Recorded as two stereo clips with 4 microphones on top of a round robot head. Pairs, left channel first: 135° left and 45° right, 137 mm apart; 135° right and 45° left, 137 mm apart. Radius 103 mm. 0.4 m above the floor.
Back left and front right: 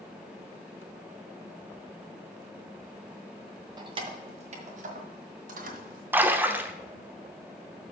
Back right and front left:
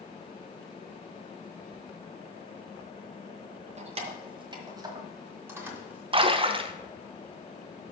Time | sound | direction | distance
3.8 | keys jangling | 10° left | 1.3 m
6.1 | a splash | 25° left | 0.9 m